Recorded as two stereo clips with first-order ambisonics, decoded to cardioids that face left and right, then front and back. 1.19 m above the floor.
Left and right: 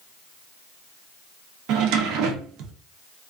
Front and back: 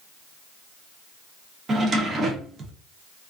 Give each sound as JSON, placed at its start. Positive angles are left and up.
{"t": 1.7, "sound": "a drawer", "azimuth_deg": -115, "distance_m": 0.5}